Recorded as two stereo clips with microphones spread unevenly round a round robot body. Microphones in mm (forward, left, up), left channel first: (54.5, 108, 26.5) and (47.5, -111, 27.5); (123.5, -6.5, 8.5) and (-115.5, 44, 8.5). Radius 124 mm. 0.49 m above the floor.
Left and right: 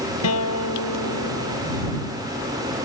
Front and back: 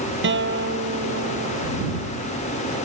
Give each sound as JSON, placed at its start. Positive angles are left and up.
{"t": 0.2, "sound": "a guitar", "azimuth_deg": 125}